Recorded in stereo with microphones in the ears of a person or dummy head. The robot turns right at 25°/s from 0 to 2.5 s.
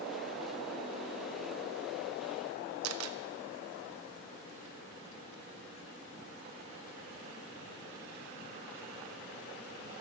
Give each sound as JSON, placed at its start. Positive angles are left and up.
{"t": 2.8, "sound": "a camera shutter", "side_deg": -85, "distance_m": 0.7}